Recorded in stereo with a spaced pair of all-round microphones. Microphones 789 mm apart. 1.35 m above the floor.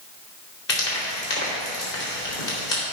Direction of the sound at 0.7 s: 70° left (ahead or behind).